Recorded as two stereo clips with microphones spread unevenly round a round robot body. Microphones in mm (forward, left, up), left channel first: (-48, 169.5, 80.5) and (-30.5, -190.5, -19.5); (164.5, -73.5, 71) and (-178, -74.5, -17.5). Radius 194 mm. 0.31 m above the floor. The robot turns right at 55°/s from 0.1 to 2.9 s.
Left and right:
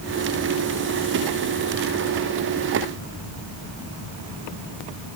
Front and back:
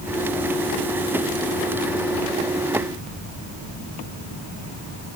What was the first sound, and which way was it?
Only background noise.